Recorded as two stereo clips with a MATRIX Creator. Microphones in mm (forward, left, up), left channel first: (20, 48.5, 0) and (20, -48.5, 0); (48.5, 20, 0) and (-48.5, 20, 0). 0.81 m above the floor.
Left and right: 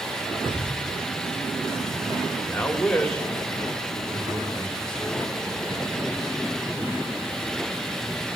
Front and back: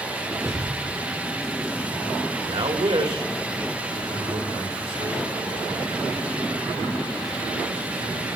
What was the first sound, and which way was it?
Knocking, 125° right.